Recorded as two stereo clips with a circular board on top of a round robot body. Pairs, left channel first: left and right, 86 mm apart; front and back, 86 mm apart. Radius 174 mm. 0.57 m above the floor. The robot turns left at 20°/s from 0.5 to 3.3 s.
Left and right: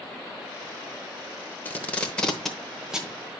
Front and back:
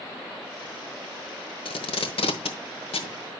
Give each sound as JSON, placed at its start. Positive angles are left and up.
{"t": 1.6, "sound": "tape being pulled", "azimuth_deg": 20, "distance_m": 0.9}